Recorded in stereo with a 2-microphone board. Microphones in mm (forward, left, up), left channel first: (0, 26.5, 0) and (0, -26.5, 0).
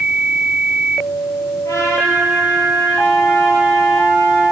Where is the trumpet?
80° left, 9 m.